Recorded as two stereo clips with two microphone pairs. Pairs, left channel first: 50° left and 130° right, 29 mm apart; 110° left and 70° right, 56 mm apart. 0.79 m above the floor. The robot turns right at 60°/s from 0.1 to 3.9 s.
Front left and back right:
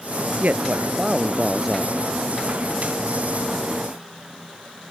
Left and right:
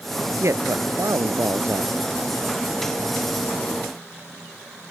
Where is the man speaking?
105° right; by 2.0 s 10° right.